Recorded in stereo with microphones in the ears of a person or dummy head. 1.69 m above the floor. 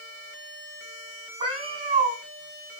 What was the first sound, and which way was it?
A cat meowing, 40° right (ahead or behind).